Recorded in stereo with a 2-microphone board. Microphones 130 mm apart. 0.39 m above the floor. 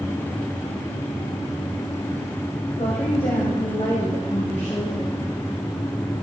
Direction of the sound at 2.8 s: 55° left (ahead or behind).